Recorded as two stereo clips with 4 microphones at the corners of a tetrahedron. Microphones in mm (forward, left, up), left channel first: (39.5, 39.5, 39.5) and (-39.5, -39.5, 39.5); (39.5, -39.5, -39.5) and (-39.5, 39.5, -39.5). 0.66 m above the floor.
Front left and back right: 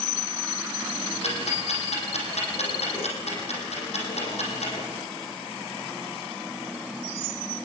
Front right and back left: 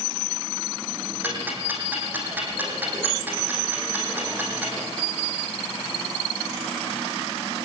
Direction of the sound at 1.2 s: 60° left.